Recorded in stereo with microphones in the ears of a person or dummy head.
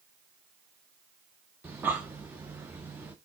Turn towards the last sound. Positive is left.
turn(degrees=-5)  # may be behind; listen again after turning